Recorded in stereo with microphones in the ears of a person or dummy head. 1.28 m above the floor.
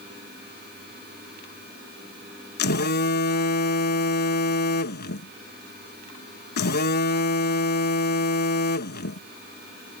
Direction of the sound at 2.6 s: 50° left (ahead or behind).